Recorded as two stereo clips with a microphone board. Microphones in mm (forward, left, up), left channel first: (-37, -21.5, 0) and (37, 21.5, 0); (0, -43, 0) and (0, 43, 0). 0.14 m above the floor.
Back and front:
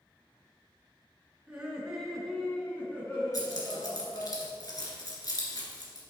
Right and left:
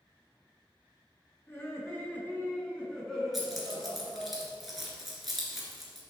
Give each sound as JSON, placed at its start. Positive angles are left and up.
{"t": 1.5, "sound": "laughter", "azimuth_deg": -40, "distance_m": 2.0}
{"t": 3.3, "sound": "keys jangling", "azimuth_deg": 180, "distance_m": 1.6}